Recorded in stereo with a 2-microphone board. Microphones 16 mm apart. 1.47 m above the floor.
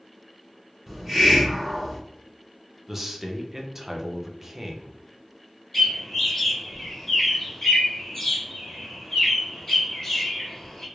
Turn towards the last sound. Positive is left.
turn(degrees=25)  # may be behind; listen again after turning